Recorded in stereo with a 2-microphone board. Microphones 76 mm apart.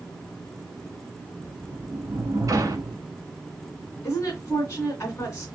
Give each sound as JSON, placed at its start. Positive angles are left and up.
{"t": 1.4, "sound": "a sliding door", "side_deg": -45, "distance_m": 1.0}
{"t": 4.0, "sound": "a woman speaking", "side_deg": 35, "distance_m": 2.5}